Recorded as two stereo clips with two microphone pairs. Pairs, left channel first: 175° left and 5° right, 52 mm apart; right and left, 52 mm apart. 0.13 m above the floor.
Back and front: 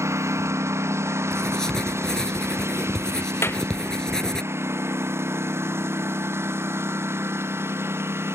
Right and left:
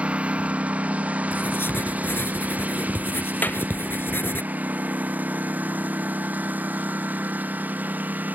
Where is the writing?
110° right.